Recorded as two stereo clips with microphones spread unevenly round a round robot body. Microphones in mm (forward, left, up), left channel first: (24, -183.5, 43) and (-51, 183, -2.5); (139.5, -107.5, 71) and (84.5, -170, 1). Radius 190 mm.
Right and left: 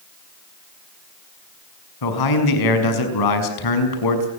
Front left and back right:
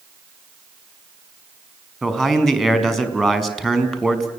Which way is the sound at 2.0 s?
45° right.